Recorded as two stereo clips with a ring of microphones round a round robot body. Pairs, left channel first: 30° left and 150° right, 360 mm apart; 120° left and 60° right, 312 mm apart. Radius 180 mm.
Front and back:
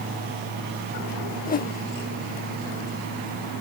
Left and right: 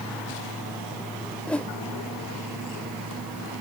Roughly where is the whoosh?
Ahead left.